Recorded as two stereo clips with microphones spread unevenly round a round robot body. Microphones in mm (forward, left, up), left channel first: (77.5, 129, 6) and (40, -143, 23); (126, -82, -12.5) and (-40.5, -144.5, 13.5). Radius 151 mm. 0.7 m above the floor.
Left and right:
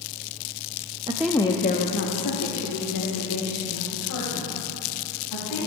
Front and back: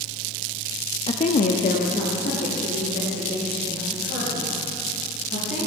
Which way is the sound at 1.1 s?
25° right.